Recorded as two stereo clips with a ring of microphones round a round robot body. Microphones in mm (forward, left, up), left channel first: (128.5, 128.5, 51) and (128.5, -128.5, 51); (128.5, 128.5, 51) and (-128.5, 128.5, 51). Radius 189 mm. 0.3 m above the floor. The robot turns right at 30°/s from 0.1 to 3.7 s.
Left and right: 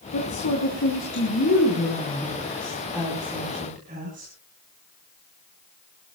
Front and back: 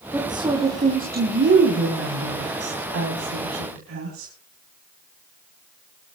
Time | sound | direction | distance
0.1 | a woman speaking | 100° left | 3 m